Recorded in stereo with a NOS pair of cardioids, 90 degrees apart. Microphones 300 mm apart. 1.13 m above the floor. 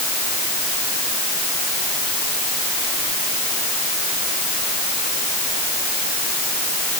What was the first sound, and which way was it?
Only background noise.